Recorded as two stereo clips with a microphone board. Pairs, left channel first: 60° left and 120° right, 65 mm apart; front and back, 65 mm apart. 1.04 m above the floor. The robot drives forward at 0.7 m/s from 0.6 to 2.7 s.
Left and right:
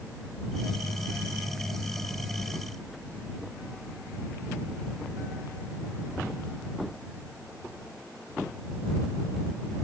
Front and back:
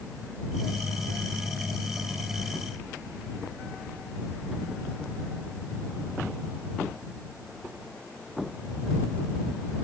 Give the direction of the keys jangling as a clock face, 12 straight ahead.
I don't hear keys jangling.